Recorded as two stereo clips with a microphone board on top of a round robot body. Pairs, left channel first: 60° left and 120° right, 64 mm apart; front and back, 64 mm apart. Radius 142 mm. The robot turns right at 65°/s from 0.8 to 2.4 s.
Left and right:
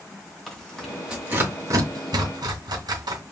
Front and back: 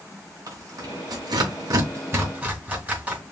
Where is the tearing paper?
145° left, 2 m; by 3.2 s 110° right, 2 m.